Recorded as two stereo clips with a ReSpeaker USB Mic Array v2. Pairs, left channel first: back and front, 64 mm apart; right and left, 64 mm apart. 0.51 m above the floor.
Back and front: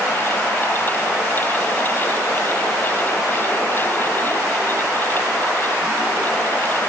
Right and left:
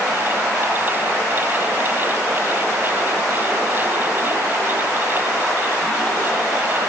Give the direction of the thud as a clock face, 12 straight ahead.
I don't hear a thud.